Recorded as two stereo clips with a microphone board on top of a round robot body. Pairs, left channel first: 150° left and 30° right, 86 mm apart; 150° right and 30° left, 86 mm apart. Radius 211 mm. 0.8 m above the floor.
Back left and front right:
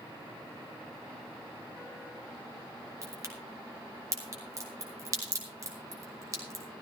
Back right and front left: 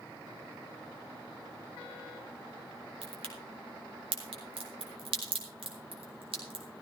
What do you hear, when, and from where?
3.0 s a crack: 25° left, 3.5 m